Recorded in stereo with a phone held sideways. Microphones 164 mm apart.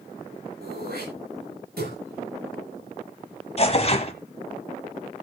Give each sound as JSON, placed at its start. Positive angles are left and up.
{"t": 0.6, "sound": "throat clearing", "side_deg": -80, "distance_m": 9.5}
{"t": 3.6, "sound": "tearing paper", "side_deg": 40, "distance_m": 1.6}